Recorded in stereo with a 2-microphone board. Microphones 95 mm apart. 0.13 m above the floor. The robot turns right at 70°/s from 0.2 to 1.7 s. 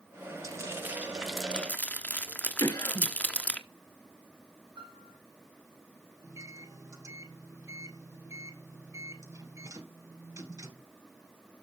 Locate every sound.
0.4 s frying: 35° right (ahead or behind), 1.3 m; by 3.6 s 15° left (ahead or behind), 1.3 m
2.6 s a cough: 35° left (ahead or behind), 2 m
4.8 s a piano: 55° right (ahead or behind), 6.5 m
6.2 s a microwave: 35° right (ahead or behind), 1.6 m